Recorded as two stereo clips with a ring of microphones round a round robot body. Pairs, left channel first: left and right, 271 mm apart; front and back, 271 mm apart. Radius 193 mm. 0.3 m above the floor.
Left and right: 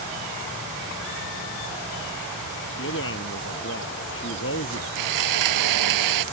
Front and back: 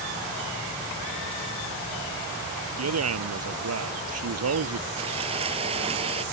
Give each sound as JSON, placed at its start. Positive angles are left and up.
{"t": 2.8, "sound": "a man speaking", "azimuth_deg": 150}
{"t": 5.0, "sound": "sawing", "azimuth_deg": -105}